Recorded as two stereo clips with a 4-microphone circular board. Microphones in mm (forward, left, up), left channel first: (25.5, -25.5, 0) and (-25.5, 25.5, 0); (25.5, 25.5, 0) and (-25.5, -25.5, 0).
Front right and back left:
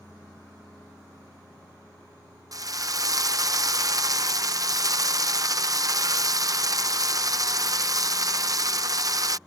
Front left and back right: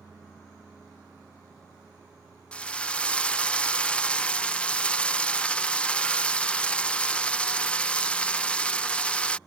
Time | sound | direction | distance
2.5 | a drill | 115° left | ?